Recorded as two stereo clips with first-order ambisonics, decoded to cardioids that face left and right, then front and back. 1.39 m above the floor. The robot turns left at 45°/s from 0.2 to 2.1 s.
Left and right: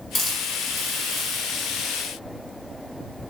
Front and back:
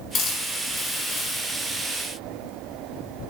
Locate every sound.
0.1 s a hiss: 20° left, 1.3 m; by 1.4 s 35° right, 1.3 m